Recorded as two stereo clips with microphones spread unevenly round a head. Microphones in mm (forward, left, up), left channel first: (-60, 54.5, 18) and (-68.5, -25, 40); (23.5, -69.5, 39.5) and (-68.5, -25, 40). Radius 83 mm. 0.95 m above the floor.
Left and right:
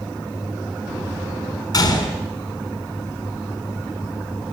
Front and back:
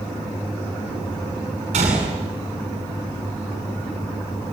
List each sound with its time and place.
1.7 s a gunshot: 120° left, 8.5 m